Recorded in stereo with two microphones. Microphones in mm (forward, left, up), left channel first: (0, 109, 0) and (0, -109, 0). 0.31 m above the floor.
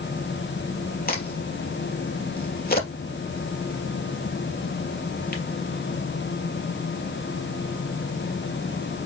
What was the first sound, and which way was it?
A crack, 45° left (ahead or behind).